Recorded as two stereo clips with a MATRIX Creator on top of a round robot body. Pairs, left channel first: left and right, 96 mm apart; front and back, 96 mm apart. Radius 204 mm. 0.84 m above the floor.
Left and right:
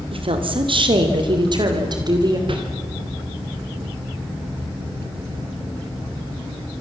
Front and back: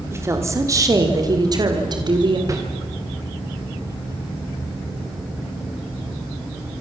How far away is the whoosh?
About 3.5 m.